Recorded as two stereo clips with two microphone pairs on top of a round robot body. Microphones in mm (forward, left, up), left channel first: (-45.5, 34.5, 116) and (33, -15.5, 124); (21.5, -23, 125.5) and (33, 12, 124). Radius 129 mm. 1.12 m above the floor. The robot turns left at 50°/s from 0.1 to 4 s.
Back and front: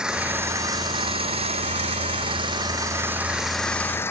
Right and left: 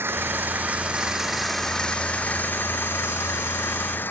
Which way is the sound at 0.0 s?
50° left.